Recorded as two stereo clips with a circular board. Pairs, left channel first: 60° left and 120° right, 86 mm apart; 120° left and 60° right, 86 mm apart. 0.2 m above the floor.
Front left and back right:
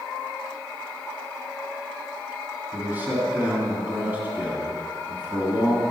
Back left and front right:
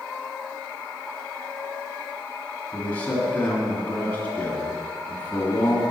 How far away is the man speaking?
About 1.8 m.